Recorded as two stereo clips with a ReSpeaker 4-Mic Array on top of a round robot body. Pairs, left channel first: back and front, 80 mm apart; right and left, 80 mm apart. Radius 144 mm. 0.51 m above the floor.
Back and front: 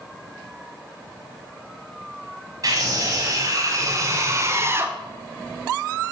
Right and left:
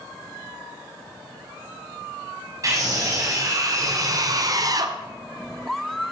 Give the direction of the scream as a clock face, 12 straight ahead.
11 o'clock.